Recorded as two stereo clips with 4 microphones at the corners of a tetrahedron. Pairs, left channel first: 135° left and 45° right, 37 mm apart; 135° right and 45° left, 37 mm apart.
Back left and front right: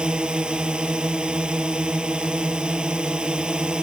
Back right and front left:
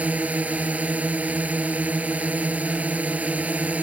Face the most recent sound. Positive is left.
turn(degrees=10)